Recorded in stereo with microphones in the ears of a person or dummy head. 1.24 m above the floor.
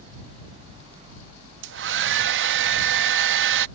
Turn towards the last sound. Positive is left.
turn(degrees=-70)  # may be behind; listen again after turning